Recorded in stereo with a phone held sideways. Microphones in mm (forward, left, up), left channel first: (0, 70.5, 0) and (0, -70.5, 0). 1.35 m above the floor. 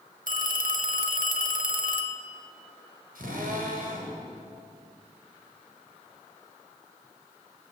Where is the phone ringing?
75° right (ahead or behind), 1.7 m.